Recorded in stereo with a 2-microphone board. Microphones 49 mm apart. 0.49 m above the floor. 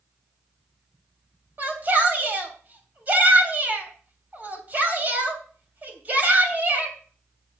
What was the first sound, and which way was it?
A shout, 35° right (ahead or behind).